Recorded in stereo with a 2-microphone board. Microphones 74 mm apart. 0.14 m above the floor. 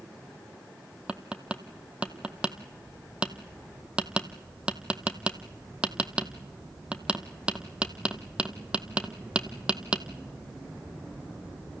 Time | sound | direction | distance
1.1 | tapping | 15° right (ahead or behind) | 0.8 m